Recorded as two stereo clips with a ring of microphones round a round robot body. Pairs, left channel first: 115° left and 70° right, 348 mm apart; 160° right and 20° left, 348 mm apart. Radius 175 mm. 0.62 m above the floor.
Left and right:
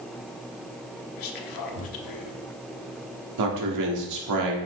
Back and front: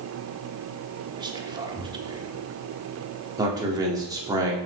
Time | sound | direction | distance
1.2 | whispering | 100° left | 1.1 m
3.4 | a man speaking | 55° right | 1.8 m